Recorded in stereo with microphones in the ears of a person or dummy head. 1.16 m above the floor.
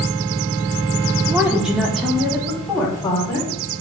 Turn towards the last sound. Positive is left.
turn(degrees=5)  # may be behind; listen again after turning